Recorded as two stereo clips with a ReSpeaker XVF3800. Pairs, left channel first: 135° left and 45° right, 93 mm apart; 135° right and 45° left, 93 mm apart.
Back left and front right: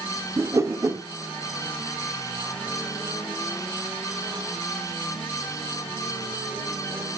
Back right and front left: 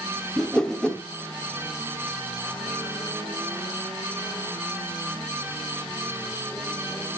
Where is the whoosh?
60° right, 1.1 m.